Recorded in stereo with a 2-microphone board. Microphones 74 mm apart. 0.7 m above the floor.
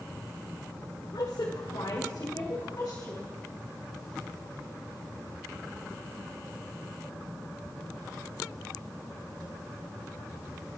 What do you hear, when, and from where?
1.1 s a woman speaking: 70° left (ahead or behind), 1.9 m; by 3.3 s 45° left (ahead or behind), 4 m